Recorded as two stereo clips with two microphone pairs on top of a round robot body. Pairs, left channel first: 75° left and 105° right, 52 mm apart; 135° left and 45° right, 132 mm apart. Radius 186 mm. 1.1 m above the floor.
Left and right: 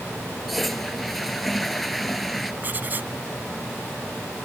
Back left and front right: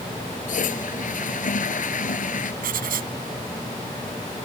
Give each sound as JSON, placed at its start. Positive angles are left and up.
{"t": 0.5, "sound": "a toilet flushing", "azimuth_deg": 165}
{"t": 2.6, "sound": "writing", "azimuth_deg": -55}